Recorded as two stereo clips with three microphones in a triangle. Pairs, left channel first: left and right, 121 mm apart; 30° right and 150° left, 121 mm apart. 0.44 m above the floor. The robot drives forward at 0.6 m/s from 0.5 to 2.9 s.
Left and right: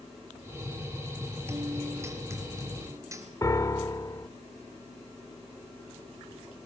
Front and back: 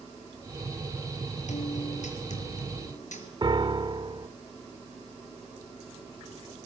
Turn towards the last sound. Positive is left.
turn(degrees=135)